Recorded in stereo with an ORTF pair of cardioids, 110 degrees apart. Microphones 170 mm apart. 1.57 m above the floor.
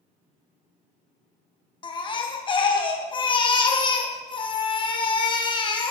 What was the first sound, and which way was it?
A baby crying, 30° left.